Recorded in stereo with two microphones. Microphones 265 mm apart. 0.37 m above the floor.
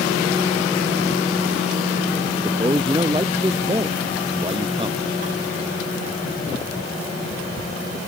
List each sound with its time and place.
2.4 s a man speaking: 20° right (ahead or behind)